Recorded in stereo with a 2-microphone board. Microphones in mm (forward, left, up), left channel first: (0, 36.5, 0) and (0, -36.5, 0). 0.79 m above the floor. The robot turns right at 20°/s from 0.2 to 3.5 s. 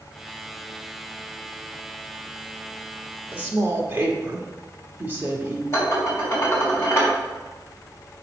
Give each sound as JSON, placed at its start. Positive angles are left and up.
{"t": 3.3, "sound": "a woman speaking", "side_deg": -20, "distance_m": 1.7}
{"t": 5.7, "sound": "dishes clattering", "side_deg": 35, "distance_m": 3.0}